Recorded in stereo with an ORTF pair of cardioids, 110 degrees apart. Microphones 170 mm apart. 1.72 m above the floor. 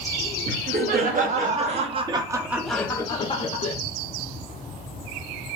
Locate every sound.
0.5 s laughter: 60° right, 1.3 m; by 3.8 s 45° left, 0.8 m